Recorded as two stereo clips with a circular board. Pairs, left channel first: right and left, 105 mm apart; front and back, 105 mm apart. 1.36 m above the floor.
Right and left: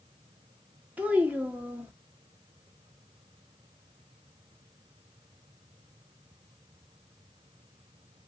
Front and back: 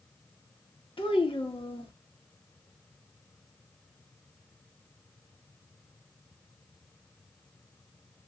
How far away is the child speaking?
About 1.1 m.